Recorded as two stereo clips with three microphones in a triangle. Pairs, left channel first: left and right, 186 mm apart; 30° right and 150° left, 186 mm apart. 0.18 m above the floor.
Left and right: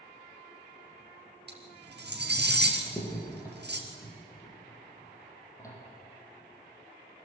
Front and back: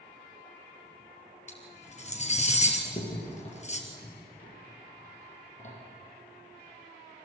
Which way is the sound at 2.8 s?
15° left.